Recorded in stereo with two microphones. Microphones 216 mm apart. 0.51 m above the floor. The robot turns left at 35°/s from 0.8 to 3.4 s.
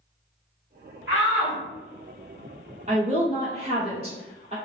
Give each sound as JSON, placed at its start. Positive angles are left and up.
{"t": 1.1, "sound": "a shout", "side_deg": -60, "distance_m": 1.9}
{"t": 2.9, "sound": "a woman speaking", "side_deg": -30, "distance_m": 1.0}